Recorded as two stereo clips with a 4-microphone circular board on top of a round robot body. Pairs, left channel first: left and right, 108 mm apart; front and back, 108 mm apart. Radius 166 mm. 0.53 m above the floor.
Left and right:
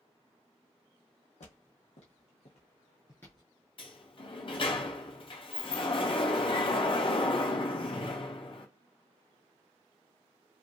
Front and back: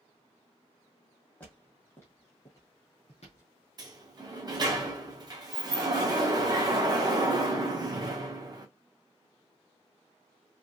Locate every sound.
1.4 s footsteps: 75° left, 1.6 m; by 3.5 s 15° right, 0.5 m
3.8 s a sliding door: 130° left, 0.9 m